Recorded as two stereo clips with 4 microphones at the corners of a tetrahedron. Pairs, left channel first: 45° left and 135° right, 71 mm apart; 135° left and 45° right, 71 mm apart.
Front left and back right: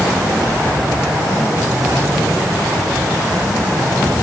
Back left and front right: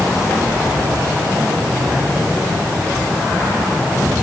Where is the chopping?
I don't hear chopping.